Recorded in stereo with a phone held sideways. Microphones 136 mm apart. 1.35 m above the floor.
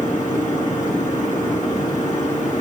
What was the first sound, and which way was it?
A machine running, 70° left (ahead or behind).